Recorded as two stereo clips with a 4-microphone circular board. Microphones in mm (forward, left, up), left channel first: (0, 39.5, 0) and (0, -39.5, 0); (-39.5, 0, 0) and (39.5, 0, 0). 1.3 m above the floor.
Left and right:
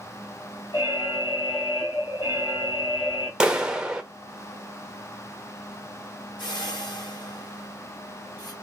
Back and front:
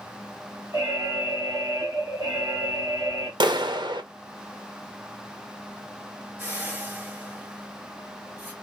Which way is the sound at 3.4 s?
10° right.